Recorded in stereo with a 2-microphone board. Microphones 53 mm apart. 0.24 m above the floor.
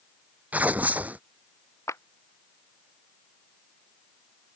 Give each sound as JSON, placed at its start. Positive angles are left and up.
{"t": 0.5, "sound": "tearing paper", "side_deg": -30}
{"t": 1.9, "sound": "a clap", "side_deg": 75}